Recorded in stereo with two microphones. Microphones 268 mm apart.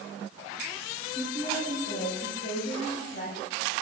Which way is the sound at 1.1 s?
25° left (ahead or behind).